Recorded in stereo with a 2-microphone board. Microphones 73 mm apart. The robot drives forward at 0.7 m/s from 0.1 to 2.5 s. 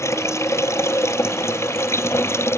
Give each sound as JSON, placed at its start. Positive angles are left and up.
{"t": 0.0, "sound": "running water", "side_deg": 40}